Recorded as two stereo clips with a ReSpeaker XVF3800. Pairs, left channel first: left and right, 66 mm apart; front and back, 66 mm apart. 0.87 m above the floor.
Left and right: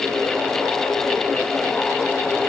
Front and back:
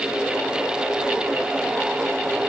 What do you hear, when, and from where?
Only background noise.